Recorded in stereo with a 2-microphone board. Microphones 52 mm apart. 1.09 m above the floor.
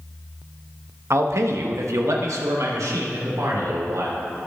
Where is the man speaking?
60° right (ahead or behind), 1.0 m; by 4.4 s 90° right, 3 m.